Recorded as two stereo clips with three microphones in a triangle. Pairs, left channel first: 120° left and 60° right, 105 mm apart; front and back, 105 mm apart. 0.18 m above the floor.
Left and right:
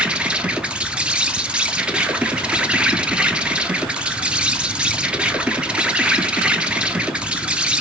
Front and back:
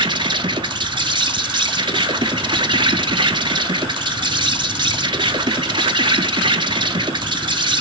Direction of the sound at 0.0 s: 140° right.